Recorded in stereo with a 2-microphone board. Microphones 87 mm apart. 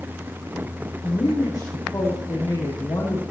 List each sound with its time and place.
1.0 s a woman speaking: 45° left (ahead or behind), 6 m